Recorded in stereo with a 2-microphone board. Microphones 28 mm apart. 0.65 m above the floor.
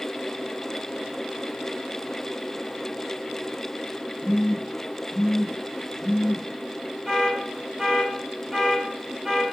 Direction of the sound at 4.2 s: 10° right (ahead or behind).